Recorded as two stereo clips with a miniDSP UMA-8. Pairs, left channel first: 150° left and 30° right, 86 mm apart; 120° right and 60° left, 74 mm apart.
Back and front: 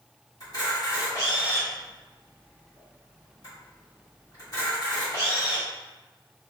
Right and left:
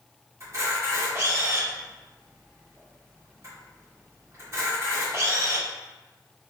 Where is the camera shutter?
110° left, 1.6 m.